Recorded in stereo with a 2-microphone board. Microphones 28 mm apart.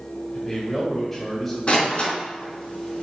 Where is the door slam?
40° left (ahead or behind), 2.5 m.